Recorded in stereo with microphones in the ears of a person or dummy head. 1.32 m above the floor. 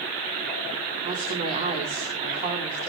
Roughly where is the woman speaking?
Right.